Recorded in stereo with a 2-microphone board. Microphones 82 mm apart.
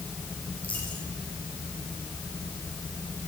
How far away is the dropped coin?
About 9.5 m.